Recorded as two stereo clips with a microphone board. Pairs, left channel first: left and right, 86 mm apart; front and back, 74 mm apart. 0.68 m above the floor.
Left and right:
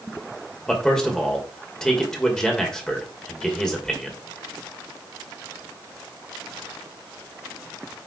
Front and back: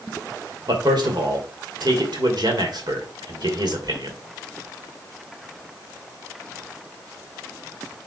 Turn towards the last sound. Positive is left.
turn(degrees=170)